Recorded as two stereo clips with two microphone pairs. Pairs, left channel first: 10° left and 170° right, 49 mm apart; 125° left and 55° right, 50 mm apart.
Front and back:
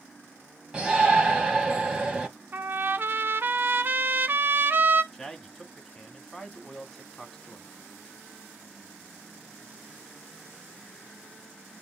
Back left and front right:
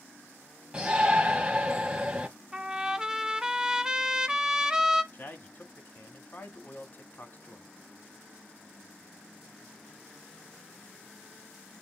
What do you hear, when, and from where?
0.7 s a shout: 110° right, 1.4 m
2.5 s a trumpet: 135° right, 0.8 m
5.1 s a man speaking: 95° left, 1.9 m